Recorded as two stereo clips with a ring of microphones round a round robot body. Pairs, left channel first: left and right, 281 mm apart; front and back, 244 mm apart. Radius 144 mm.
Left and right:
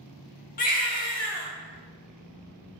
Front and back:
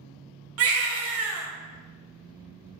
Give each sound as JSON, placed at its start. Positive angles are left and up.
{"t": 0.6, "sound": "a baby crying", "azimuth_deg": 150, "distance_m": 0.7}